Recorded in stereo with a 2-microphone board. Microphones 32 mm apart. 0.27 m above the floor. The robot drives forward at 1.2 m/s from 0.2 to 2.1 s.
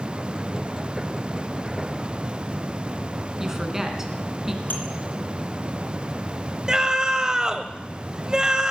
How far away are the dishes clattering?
About 3 m.